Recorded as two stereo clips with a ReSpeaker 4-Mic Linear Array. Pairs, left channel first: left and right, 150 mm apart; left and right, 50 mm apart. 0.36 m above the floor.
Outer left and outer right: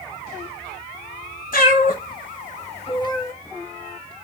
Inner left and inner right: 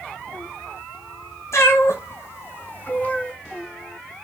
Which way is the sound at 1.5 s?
75° left (ahead or behind).